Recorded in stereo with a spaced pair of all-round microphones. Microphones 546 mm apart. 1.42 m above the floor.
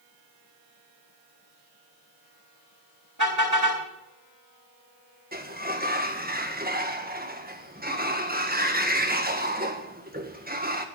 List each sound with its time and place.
3.2 s a car horn: 35° right (ahead or behind), 4 m
5.3 s a sliding door: 15° right (ahead or behind), 1.6 m